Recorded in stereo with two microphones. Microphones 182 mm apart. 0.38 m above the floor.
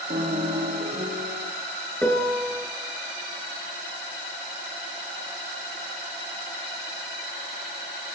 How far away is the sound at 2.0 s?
About 4.5 m.